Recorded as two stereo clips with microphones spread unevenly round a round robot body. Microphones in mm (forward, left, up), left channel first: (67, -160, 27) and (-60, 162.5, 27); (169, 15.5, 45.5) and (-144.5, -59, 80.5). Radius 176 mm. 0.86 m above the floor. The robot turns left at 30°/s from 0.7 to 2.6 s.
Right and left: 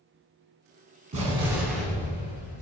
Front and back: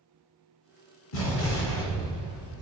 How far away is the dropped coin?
I don't hear a dropped coin.